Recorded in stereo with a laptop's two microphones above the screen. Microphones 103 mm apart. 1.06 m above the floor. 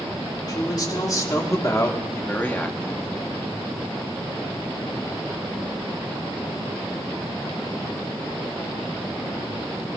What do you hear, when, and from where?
0.5 s a man speaking: 40° left (ahead or behind), 4 m; by 3.1 s 5° left (ahead or behind), 1.9 m